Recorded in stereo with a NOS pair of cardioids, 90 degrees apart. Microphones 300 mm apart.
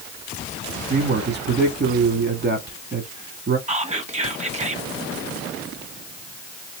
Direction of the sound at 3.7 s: 25° right.